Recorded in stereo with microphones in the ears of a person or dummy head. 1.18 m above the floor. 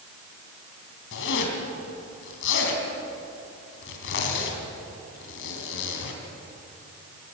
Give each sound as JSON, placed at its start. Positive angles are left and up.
{"t": 1.1, "sound": "a zipper", "side_deg": 65, "distance_m": 3.5}